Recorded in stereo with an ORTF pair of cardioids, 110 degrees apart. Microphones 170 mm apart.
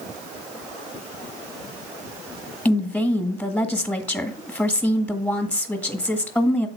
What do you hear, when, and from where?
2.6 s a woman speaking: 5° left, 1.6 m